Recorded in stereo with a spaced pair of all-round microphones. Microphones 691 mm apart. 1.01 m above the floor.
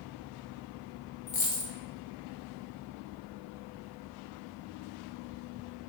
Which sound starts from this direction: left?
A dropped coin, at 1.3 s.